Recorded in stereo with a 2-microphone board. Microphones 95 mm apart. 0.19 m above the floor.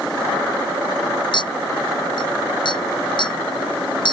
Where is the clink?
55° left (ahead or behind).